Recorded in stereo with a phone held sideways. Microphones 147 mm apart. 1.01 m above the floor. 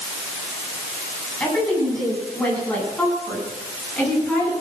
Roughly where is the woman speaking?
Centre.